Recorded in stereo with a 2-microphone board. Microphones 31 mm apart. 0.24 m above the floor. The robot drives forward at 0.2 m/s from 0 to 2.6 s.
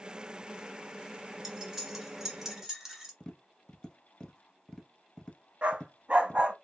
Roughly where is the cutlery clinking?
Centre.